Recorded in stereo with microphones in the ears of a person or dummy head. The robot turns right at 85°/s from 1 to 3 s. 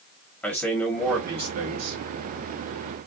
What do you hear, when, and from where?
0.4 s a man speaking: 175° left, 1.0 m; by 2.0 s 100° right, 1.0 m